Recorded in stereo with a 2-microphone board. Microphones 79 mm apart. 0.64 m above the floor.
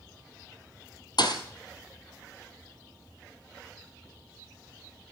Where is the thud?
65° left (ahead or behind), 1.7 m.